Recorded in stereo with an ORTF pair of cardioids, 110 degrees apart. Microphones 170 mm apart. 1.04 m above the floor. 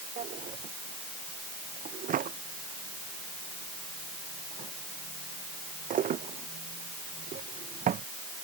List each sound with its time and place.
0.2 s a drawer: 50° right